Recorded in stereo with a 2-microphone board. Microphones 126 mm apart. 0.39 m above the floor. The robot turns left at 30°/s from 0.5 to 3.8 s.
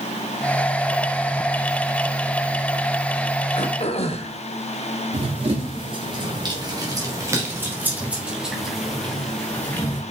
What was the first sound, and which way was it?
Throat clearing, 55° left (ahead or behind).